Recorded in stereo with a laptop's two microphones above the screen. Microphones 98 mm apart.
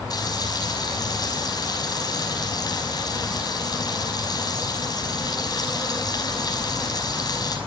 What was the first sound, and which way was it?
Frying, 45° left (ahead or behind).